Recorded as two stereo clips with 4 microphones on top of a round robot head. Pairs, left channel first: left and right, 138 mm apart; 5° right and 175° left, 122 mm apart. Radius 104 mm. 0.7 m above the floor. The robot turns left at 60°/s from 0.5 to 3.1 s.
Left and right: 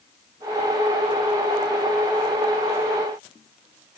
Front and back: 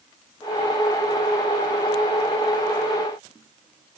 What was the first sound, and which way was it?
Only background noise.